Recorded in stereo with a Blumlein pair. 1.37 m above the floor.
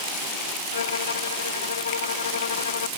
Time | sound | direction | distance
0.7 | a violin | 70° left | ?